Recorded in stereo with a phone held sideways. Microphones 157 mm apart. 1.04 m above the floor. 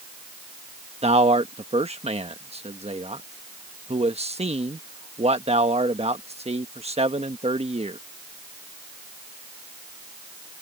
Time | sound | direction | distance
1.0 | a man speaking | 40° right (ahead or behind) | ?